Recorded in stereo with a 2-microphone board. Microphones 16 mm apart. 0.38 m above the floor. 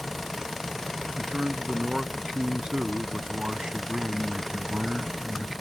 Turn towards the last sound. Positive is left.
turn(degrees=-55)  # may be behind; listen again after turning